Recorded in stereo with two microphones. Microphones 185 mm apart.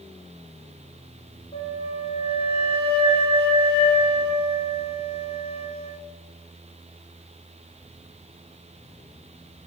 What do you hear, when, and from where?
1.5 s a flute: 35° left (ahead or behind), 0.8 m